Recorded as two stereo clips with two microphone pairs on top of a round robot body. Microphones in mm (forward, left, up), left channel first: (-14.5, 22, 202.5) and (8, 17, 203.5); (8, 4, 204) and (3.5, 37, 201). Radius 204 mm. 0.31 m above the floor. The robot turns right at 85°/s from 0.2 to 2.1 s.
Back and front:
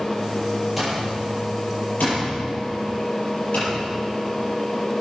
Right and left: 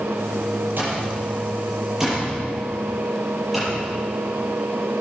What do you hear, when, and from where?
0.8 s an alarm clock: 70° left, 8 m; by 3.8 s 175° right, 8 m